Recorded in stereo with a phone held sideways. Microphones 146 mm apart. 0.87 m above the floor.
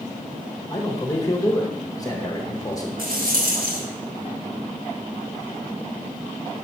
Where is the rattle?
85° right, 1.3 m.